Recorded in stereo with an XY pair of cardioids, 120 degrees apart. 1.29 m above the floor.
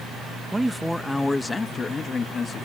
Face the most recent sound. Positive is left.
turn(degrees=40)